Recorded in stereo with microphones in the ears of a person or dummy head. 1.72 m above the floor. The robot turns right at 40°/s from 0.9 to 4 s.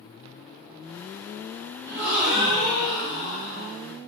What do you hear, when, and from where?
1.9 s a gasp: 30° right, 1.3 m; by 3.7 s 45° left, 1.3 m